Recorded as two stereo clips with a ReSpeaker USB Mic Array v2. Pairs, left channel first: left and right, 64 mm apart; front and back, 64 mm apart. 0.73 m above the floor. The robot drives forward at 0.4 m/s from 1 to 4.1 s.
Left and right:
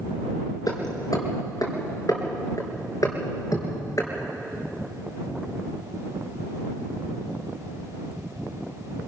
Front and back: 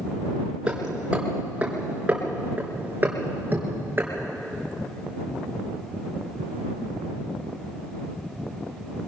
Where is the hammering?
105° left, 4 m; by 4.1 s 120° left, 4.5 m.